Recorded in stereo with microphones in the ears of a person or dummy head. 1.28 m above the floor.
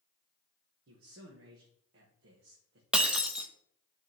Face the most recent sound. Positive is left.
turn(degrees=0)  # may be behind; listen again after turning